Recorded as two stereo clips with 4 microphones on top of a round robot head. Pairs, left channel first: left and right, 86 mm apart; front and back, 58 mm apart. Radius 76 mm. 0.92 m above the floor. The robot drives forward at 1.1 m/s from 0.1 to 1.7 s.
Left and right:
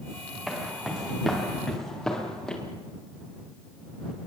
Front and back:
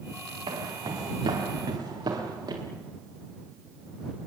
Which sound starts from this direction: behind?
Footsteps, at 0.5 s.